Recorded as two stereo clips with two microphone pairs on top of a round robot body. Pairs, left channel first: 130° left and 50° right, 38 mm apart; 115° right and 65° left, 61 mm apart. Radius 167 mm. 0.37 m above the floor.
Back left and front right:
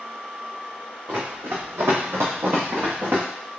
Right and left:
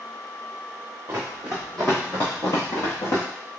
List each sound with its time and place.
1.1 s running footsteps: 5° right, 1.3 m; by 3.2 s 95° right, 1.5 m